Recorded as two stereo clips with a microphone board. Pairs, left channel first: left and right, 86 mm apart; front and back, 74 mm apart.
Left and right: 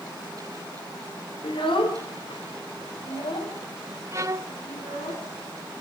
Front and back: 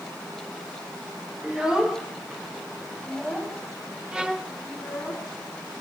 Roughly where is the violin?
Right.